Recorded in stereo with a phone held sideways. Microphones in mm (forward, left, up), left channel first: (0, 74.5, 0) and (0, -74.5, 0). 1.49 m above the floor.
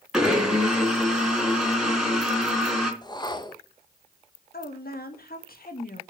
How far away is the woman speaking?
About 2.0 m.